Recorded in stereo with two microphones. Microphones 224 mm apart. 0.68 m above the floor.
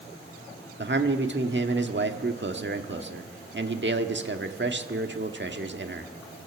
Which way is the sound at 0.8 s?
55° right (ahead or behind).